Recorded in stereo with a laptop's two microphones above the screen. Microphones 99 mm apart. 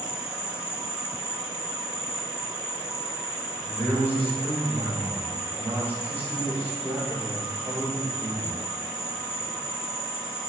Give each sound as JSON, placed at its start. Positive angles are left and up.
{"t": 0.0, "sound": "an insect", "side_deg": -10, "distance_m": 1.4}
{"t": 3.6, "sound": "a man speaking", "side_deg": 20, "distance_m": 2.5}